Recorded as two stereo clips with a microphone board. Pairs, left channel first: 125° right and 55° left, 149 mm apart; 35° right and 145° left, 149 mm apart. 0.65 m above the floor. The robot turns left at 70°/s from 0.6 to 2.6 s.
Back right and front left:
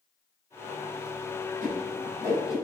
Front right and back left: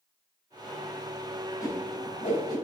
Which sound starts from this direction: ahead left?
A whoosh, at 1.6 s.